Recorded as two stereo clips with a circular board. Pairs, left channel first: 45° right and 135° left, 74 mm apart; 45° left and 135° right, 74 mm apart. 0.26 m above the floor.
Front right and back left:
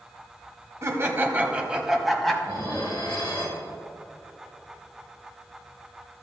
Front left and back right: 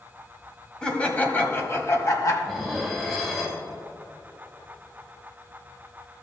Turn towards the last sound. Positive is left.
turn(degrees=-40)